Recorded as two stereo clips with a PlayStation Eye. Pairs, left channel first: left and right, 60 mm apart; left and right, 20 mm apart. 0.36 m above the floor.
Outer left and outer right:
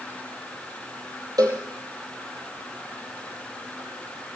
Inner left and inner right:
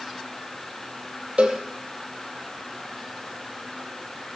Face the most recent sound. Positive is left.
turn(degrees=-80)